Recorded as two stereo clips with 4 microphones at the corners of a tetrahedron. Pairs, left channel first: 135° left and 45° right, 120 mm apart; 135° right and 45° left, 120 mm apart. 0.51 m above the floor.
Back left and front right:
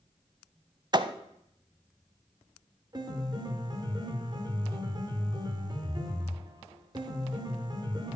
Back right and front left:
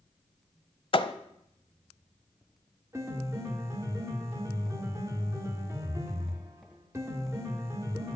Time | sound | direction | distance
0.9 | a thud | 95° right | 0.6 m
2.9 | a piano | 10° right | 1.5 m